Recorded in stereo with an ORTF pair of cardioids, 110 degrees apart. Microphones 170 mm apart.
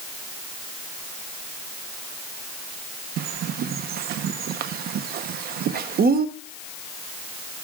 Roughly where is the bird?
Ahead right.